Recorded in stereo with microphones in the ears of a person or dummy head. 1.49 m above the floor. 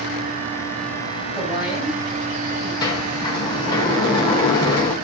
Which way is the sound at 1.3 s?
15° right (ahead or behind).